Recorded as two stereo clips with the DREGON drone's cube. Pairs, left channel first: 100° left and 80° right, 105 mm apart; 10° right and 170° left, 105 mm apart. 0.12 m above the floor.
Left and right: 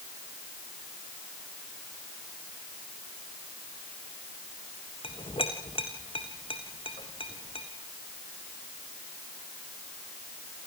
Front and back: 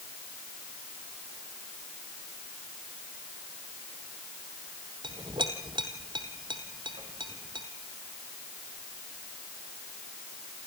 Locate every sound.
5.0 s a clink: 130° left, 3 m